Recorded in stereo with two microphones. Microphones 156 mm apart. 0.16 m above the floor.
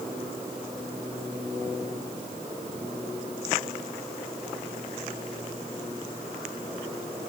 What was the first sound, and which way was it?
Only background noise.